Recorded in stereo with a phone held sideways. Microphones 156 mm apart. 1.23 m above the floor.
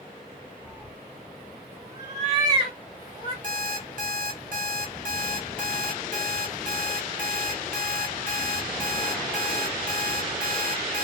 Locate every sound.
0.7 s a cat meowing: 25° right (ahead or behind), 1.3 m; by 3.3 s 30° right (ahead or behind), 1.5 m
3.4 s an alarm clock: 60° right (ahead or behind), 0.7 m